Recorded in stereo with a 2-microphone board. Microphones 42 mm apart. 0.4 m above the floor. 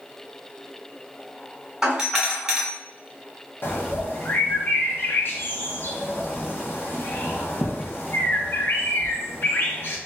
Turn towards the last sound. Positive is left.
turn(degrees=55)  # may be behind; listen again after turning